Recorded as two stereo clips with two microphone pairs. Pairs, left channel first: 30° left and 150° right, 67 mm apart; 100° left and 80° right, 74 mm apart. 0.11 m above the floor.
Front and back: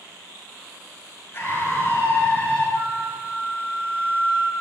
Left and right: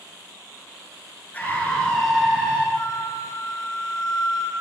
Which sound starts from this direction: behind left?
A flute, at 2.8 s.